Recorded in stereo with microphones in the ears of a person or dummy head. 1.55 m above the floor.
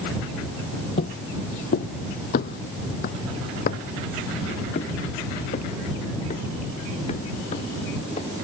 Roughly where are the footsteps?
Left.